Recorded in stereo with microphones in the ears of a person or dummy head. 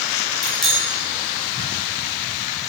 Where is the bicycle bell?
Centre (ahead or behind), 6 m.